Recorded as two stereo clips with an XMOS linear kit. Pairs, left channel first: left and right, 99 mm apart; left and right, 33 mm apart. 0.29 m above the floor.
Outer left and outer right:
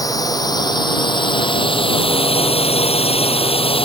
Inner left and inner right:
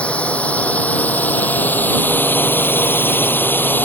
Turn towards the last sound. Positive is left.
turn(degrees=65)  # may be behind; listen again after turning